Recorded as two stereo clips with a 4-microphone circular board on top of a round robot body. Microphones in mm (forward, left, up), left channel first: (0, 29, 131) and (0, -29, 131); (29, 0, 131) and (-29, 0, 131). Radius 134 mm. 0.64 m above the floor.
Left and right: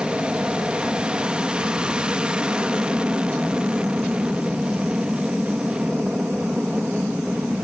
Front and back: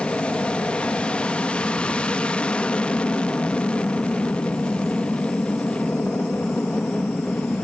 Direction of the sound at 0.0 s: 45° right.